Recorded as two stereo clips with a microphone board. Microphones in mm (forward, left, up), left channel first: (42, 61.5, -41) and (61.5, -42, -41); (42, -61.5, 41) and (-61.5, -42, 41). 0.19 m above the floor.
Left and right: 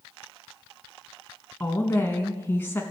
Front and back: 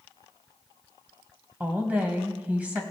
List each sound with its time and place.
1.6 s a woman speaking: 120° left, 1.0 m